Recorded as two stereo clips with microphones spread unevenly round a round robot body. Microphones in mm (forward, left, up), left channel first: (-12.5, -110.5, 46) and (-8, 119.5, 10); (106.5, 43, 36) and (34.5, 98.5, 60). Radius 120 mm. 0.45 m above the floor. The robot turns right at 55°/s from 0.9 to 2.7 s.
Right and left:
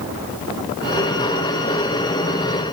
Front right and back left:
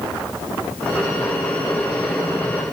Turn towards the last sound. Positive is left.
No sound to turn to.